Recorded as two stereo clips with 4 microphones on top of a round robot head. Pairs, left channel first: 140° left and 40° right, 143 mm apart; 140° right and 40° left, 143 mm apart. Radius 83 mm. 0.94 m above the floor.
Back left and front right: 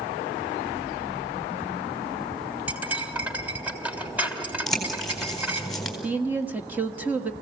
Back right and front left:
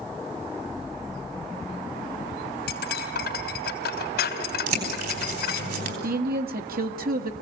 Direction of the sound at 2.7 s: 120° right.